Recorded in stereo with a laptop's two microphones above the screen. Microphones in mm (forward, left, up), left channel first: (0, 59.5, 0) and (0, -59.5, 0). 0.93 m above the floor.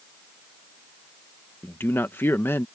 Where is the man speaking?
20° left (ahead or behind).